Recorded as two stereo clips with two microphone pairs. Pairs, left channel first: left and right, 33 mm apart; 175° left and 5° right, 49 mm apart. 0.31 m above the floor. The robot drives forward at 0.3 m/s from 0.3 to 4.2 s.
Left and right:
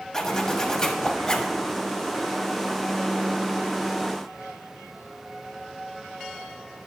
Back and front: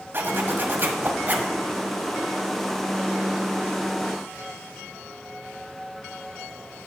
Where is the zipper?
25° left, 1.4 m; by 1.6 s 35° left, 1.2 m.